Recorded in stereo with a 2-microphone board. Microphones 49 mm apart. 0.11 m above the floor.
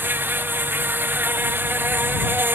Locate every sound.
0.0 s an insect: 45° right (ahead or behind)